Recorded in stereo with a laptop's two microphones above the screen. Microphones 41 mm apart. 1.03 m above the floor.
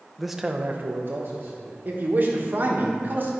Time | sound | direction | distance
0.2 | a man speaking | 5° left (ahead or behind) | 0.7 m
1.9 | a man speaking | 45° right (ahead or behind) | 1.2 m